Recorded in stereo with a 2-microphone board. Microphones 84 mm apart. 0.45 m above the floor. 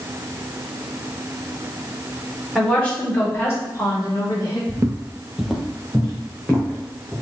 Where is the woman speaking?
10° left (ahead or behind), 1.5 m; by 4.6 s 55° left (ahead or behind), 2.5 m.